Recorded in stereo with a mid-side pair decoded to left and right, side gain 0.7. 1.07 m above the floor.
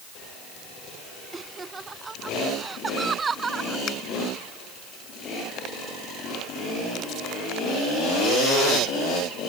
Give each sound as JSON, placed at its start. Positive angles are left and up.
{"t": 1.3, "sound": "laughter", "azimuth_deg": -20}
{"t": 3.9, "sound": "a finger snap", "azimuth_deg": 45}